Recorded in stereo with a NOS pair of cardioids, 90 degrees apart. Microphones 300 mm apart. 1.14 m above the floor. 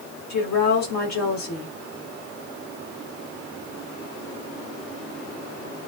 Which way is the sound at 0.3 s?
60° left.